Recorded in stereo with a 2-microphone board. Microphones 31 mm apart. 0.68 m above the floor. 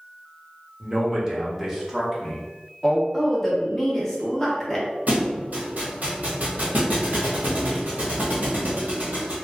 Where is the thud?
55° right (ahead or behind), 1.2 m.